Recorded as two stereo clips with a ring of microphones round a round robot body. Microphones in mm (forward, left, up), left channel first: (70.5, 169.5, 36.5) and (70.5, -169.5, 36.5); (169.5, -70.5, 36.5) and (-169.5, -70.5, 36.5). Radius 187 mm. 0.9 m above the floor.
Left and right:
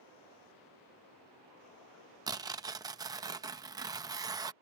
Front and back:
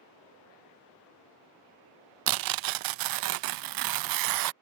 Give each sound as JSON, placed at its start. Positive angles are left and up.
{"t": 2.3, "sound": "tearing paper", "azimuth_deg": -170}